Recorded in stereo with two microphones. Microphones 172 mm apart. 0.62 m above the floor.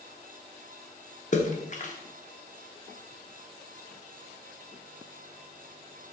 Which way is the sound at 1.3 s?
45° left (ahead or behind).